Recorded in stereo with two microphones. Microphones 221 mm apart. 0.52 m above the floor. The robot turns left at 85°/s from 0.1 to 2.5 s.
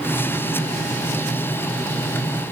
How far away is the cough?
I don't hear a cough.